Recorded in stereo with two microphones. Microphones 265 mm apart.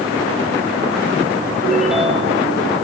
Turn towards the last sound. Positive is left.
turn(degrees=0)  # may be behind; listen again after turning